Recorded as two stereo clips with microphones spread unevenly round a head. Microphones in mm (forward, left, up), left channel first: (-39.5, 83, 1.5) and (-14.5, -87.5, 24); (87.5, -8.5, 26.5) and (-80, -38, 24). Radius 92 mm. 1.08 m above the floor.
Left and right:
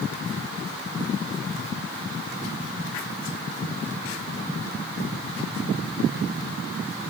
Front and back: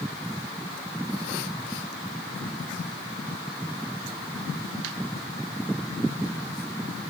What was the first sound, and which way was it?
Only background noise.